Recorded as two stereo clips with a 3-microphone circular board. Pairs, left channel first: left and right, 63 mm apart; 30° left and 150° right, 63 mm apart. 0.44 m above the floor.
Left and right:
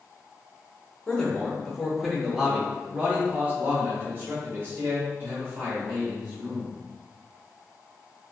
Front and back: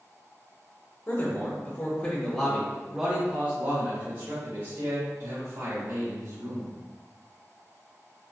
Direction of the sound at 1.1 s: 25° left.